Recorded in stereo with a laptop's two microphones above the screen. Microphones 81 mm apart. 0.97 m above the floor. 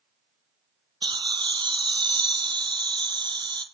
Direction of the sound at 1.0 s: 65° right (ahead or behind).